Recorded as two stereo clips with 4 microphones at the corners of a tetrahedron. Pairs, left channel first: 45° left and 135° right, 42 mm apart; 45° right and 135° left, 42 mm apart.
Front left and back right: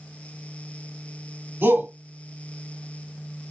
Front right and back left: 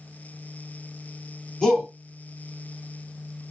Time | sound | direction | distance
1.6 | a shout | 120° right | 2.5 m